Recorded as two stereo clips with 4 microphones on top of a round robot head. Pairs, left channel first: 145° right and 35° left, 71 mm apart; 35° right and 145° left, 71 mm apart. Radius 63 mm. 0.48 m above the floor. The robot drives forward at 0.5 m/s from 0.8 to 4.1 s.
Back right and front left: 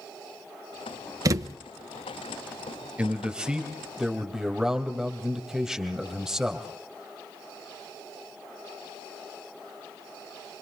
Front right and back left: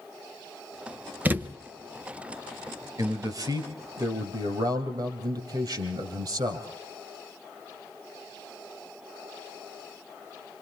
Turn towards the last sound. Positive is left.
turn(degrees=120)